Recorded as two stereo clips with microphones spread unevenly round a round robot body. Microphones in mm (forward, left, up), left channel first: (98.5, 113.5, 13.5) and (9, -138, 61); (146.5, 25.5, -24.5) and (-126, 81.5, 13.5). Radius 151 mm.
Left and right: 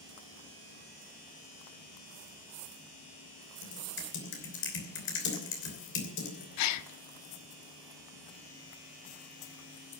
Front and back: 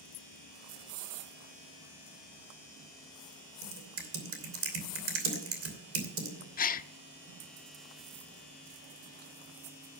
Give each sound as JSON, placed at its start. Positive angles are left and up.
{"t": 3.6, "sound": "typing on a keyboard", "azimuth_deg": 125, "distance_m": 3.0}
{"t": 6.6, "sound": "a gasp", "azimuth_deg": 50, "distance_m": 0.6}